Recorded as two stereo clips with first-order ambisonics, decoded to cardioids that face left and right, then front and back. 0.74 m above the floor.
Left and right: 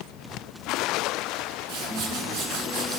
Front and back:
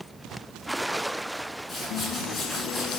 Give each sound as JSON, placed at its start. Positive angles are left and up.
{"t": 1.7, "sound": "a whoosh", "azimuth_deg": -70, "distance_m": 1.5}